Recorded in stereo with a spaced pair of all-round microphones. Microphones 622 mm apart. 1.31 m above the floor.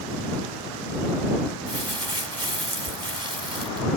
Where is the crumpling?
40° right (ahead or behind).